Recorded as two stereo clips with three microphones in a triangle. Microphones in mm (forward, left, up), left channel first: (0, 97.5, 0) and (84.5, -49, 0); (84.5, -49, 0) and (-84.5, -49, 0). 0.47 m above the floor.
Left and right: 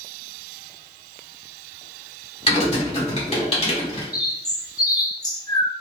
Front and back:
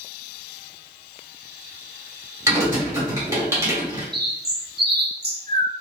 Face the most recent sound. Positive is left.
turn(degrees=-175)